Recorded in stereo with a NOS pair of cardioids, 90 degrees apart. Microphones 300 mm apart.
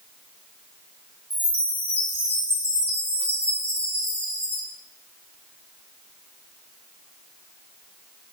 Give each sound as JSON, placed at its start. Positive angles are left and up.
{"t": 1.3, "sound": "a chime", "azimuth_deg": 5, "distance_m": 3.0}